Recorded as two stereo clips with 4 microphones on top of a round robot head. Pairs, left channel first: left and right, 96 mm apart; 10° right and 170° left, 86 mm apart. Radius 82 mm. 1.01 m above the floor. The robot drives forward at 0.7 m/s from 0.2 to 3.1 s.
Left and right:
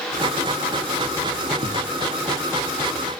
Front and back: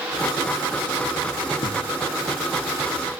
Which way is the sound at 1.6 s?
50° right.